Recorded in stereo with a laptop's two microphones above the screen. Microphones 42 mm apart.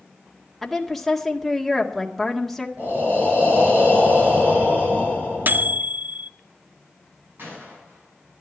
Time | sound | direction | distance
0.6 | a woman speaking | 5° left (ahead or behind) | 1.7 m
2.8 | breathing | 50° right (ahead or behind) | 5.5 m
5.5 | a microwave | 55° right (ahead or behind) | 0.5 m
7.4 | a gunshot | 55° right (ahead or behind) | 8.5 m